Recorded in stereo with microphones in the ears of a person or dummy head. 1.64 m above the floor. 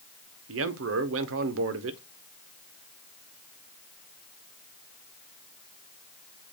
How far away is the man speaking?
About 0.9 m.